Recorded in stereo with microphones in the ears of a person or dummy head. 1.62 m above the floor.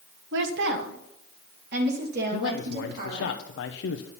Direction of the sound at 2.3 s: 70° left (ahead or behind).